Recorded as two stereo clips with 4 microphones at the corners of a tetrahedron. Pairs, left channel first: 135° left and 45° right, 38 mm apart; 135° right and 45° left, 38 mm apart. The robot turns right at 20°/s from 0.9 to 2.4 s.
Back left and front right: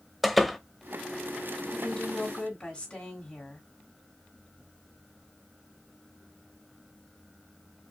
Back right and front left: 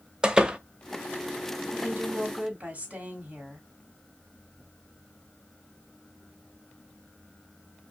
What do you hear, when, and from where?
0.2 s a door slam: 45° left, 0.6 m
1.7 s a woman speaking: 75° left, 1.9 m; by 3.7 s 85° left, 1.9 m